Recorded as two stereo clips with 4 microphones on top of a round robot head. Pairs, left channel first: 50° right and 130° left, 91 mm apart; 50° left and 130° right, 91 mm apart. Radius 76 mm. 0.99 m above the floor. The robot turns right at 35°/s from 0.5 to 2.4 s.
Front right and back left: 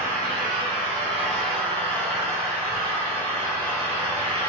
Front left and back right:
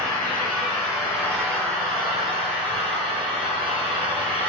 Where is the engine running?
125° left, 2.5 m; by 4.5 s 165° right, 2.5 m.